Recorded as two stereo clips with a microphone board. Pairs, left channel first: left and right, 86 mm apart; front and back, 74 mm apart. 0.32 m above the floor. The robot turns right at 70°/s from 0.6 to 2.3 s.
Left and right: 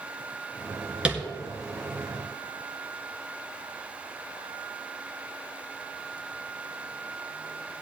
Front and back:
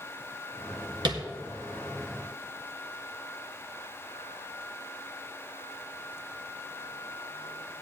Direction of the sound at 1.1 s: 170° right.